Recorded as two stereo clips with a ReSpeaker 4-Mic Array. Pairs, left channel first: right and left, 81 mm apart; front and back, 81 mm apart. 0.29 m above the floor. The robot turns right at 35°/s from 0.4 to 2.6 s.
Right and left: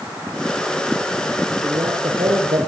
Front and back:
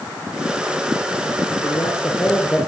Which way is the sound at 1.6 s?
45° left.